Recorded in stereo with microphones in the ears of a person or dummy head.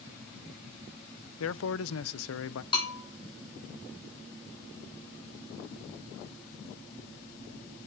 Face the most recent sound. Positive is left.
turn(degrees=25)  # may be behind; listen again after turning